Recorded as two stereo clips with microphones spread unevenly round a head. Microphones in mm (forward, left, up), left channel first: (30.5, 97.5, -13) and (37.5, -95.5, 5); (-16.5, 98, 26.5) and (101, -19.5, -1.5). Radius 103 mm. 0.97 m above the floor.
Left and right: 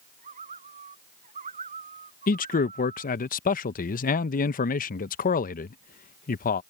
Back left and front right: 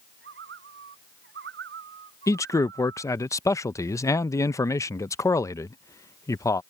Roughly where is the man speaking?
Ahead left.